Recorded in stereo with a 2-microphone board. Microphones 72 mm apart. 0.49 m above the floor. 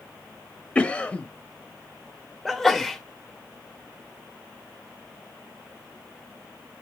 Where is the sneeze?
Centre (ahead or behind), 0.9 m.